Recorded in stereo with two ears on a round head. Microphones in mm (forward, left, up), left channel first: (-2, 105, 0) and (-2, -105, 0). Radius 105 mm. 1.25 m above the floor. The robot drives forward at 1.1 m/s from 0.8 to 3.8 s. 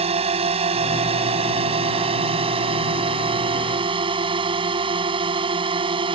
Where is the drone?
25° right (ahead or behind); by 6.2 s 20° right (ahead or behind).